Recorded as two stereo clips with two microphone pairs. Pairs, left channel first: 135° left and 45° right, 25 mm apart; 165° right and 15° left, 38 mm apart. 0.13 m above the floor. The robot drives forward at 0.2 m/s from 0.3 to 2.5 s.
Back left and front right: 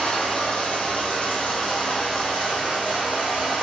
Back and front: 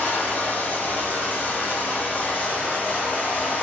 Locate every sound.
0.0 s running water: 165° left, 1.8 m